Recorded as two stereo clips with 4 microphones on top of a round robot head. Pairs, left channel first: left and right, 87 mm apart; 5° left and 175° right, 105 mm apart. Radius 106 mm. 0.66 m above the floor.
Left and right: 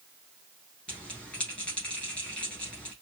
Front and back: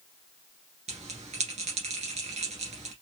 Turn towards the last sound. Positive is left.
turn(degrees=170)